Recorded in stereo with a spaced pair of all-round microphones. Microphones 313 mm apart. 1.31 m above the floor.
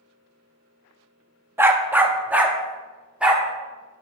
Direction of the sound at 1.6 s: 10° right (ahead or behind).